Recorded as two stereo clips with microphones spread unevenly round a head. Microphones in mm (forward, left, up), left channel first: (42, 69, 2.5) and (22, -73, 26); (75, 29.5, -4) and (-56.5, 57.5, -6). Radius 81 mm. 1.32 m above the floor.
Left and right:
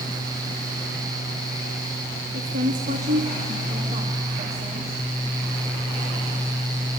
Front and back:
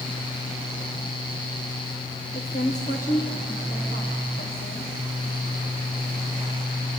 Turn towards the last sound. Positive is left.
turn(degrees=-45)